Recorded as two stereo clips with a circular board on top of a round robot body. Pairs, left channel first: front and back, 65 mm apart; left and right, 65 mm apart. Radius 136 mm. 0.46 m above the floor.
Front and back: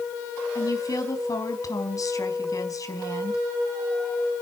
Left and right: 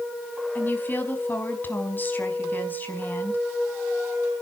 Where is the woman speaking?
30° left, 5 m.